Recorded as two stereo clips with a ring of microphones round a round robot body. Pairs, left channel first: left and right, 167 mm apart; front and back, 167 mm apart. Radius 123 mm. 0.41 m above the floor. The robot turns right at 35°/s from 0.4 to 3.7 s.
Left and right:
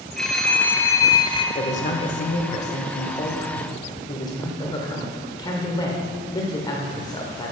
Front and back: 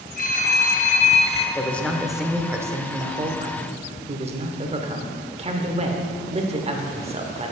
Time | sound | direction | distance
0.2 | a phone ringing | 5° left | 0.8 m
1.6 | a man speaking | 75° left | 1.0 m